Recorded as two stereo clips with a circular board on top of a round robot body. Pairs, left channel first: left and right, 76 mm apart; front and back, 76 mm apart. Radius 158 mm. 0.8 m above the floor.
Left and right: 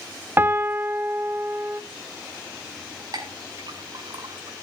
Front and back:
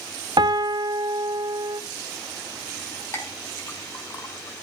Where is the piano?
155° right, 1.0 m.